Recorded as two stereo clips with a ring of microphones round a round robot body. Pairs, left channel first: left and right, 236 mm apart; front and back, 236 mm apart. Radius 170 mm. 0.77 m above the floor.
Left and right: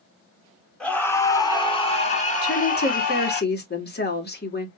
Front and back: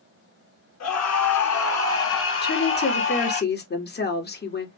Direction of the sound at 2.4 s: 45° left.